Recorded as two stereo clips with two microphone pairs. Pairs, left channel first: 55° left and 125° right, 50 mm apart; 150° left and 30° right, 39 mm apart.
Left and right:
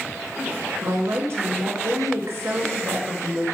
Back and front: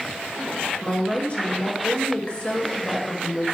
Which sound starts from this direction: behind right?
A woman speaking, at 0.8 s.